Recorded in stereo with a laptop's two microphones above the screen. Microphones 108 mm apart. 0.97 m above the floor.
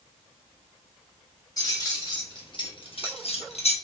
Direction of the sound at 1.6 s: 40° left (ahead or behind).